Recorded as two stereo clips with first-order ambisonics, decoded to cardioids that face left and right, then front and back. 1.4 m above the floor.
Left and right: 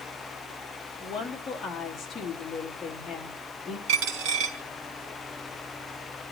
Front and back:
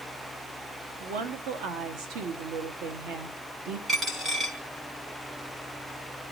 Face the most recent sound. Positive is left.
turn(degrees=-105)